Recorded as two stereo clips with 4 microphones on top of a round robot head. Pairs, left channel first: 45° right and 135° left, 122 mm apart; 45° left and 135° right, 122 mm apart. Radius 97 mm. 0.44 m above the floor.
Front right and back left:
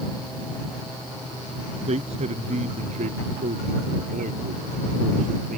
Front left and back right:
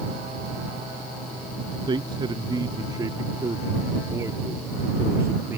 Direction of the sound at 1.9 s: 170° left.